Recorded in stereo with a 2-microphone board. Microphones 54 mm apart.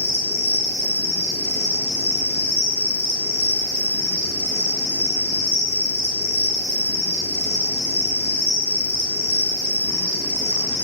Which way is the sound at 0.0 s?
40° left (ahead or behind).